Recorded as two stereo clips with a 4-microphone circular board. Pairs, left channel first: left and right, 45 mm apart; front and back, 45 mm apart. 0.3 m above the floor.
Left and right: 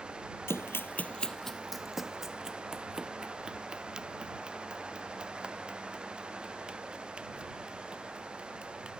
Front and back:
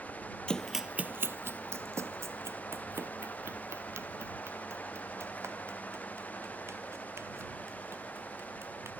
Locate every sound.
0.5 s running footsteps: 70° left; by 8.9 s 160° right